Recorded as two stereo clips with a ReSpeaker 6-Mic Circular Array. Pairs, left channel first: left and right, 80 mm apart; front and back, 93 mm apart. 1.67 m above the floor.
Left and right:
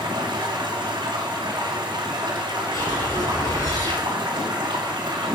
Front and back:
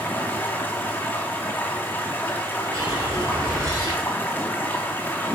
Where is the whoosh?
130° left, 4.5 m.